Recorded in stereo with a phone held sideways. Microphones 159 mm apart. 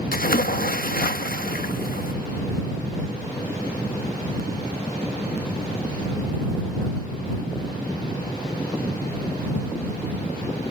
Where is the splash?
65° left (ahead or behind).